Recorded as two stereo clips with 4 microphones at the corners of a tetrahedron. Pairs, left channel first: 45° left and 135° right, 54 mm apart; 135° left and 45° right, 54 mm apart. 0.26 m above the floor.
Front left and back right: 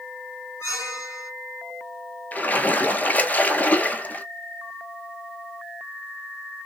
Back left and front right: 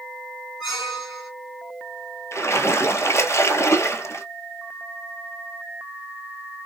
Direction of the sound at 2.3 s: 105° left.